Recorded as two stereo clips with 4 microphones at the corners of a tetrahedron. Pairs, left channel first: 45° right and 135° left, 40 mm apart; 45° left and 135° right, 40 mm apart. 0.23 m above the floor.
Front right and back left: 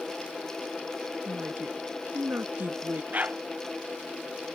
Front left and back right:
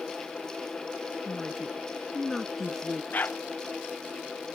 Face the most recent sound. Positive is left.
turn(degrees=85)